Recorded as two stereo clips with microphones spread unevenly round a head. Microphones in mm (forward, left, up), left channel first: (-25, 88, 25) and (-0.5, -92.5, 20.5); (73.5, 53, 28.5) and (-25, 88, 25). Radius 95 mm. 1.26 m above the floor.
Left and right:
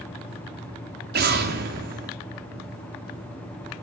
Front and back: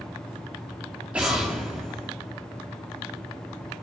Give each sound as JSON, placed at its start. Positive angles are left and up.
{"t": 1.1, "sound": "an explosion", "azimuth_deg": -115, "distance_m": 3.0}